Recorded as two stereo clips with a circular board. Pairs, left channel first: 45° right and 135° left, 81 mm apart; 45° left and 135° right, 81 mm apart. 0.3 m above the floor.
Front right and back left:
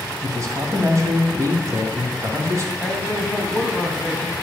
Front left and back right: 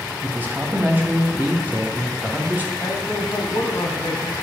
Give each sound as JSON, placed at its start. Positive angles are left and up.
{"t": 0.2, "sound": "a man speaking", "azimuth_deg": 170, "distance_m": 2.0}
{"t": 2.8, "sound": "a man speaking", "azimuth_deg": 45, "distance_m": 1.7}